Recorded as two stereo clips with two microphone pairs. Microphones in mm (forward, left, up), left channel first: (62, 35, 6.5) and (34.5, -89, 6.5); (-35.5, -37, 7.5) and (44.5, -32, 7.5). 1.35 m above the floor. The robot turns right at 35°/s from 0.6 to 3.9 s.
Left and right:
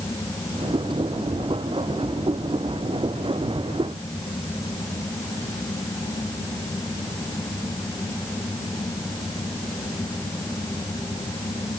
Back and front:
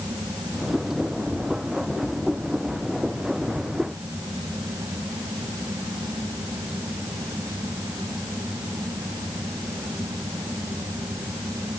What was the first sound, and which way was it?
Only background noise.